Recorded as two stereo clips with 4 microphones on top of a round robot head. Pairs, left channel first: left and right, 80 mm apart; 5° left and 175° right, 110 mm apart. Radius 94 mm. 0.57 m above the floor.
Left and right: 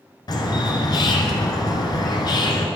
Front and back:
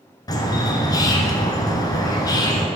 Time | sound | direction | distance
0.3 | a bird | 55° left | 1.3 m